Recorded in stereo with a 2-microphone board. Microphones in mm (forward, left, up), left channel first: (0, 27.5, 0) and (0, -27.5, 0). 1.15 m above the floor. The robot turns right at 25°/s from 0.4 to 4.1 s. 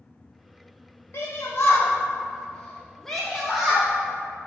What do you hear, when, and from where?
1.1 s a shout: 55° left (ahead or behind), 0.8 m; by 3.9 s 15° right (ahead or behind), 0.8 m